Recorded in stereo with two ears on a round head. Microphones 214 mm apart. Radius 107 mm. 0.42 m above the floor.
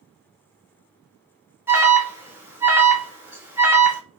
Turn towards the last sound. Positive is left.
turn(degrees=-10)  # may be behind; listen again after turning